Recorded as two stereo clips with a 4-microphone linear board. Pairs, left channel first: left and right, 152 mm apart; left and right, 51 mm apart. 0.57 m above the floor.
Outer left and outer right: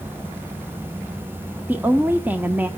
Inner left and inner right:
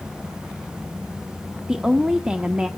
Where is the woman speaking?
10° right (ahead or behind), 0.8 m.